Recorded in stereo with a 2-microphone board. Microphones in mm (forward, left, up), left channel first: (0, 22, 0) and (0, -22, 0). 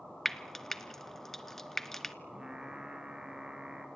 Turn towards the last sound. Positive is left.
turn(degrees=-15)  # may be behind; listen again after turning